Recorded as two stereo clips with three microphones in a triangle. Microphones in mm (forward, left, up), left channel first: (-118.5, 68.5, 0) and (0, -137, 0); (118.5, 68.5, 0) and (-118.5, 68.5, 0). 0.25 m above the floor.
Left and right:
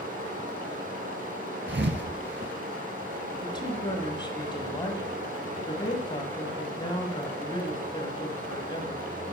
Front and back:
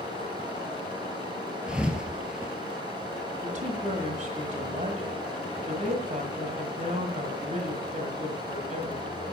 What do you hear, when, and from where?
0.0 s running water: 110° right, 3.5 m
1.7 s a thud: 95° right, 1.2 m
3.4 s a woman speaking: 175° left, 1.8 m